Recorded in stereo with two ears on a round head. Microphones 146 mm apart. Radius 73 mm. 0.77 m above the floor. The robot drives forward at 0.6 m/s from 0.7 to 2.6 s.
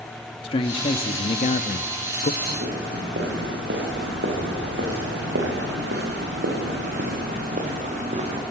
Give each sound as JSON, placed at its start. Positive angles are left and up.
{"t": 0.4, "sound": "a man speaking", "side_deg": 35, "distance_m": 1.2}
{"t": 2.4, "sound": "footsteps", "side_deg": -60, "distance_m": 8.5}